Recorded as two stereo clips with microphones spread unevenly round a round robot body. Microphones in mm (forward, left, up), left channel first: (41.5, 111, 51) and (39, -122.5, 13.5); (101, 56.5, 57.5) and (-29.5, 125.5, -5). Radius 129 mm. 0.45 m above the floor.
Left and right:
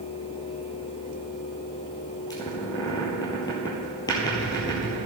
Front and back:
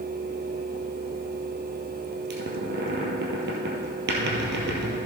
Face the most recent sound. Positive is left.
turn(degrees=165)